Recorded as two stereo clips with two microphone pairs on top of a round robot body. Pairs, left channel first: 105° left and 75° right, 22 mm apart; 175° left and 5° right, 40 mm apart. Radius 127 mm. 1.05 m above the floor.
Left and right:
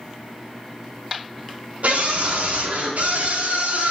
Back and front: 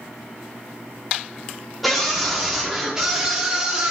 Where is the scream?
95° right, 4 m; by 3.9 s 75° right, 3.5 m.